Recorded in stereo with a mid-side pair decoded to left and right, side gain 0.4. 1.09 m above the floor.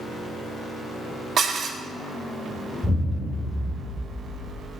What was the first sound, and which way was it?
Dishes clattering, 60° right.